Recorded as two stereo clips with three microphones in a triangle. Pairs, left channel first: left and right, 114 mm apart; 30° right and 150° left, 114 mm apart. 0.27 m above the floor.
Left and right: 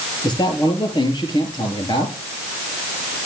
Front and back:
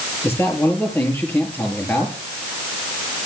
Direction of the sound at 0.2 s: 40° left.